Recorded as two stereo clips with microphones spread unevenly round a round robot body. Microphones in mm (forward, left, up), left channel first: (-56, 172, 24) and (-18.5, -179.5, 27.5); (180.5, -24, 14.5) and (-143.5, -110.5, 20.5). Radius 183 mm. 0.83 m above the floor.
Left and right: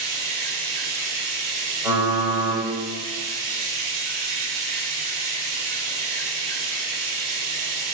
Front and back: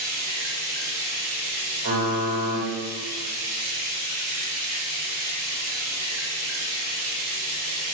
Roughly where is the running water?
Behind right.